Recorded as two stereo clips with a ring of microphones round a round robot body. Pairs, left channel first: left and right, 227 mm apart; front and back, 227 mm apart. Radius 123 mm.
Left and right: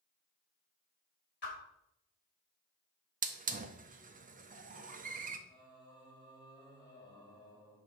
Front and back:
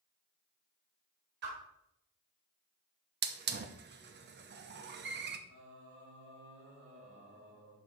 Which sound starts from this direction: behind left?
A whoosh, at 1.4 s.